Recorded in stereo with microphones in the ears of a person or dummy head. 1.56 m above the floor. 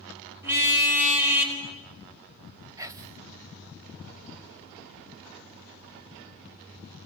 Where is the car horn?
15° right (ahead or behind), 4.5 m; by 1.6 s 5° right (ahead or behind), 4 m.